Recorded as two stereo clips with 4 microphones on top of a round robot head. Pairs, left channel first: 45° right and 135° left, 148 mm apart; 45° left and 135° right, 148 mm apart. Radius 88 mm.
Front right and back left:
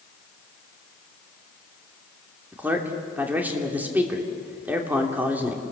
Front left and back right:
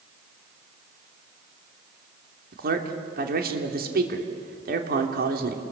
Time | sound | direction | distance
2.5 | a man speaking | 150° right | 3 m